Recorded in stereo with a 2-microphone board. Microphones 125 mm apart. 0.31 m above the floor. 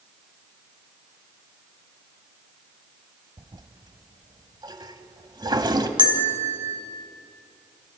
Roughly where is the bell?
Right.